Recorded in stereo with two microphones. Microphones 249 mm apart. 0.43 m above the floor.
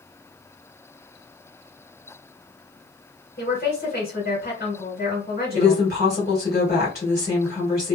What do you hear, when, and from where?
3.4 s a woman speaking: 40° left (ahead or behind), 1.8 m
5.5 s a woman speaking: 40° left (ahead or behind), 1.7 m